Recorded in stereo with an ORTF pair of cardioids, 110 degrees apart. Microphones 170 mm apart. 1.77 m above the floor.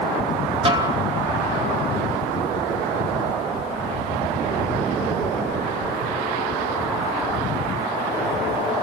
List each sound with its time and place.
0.7 s a snare drum: 30° right, 1.8 m